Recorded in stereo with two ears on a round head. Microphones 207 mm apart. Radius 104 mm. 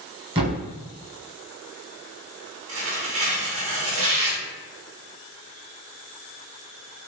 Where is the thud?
25° right (ahead or behind), 1.1 m.